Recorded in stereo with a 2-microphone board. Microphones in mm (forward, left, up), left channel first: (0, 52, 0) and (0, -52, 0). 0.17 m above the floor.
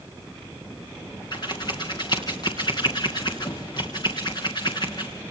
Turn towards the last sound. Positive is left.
turn(degrees=45)  # may be behind; listen again after turning